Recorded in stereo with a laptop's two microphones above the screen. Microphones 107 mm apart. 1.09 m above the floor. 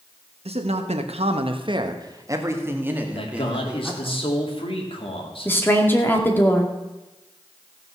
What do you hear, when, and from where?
0.5 s a man speaking: 70° right (ahead or behind), 1.4 m; by 4.2 s 5° right (ahead or behind), 3 m
3.1 s a man speaking: 55° left (ahead or behind), 2.5 m
5.5 s a woman speaking: 20° left (ahead or behind), 2 m